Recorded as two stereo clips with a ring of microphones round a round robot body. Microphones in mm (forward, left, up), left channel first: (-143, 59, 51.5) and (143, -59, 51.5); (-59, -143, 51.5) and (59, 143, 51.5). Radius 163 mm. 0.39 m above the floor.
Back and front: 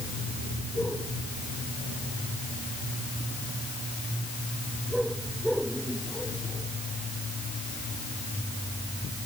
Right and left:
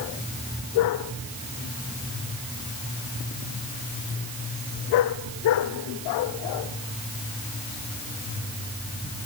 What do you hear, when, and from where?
Only background noise.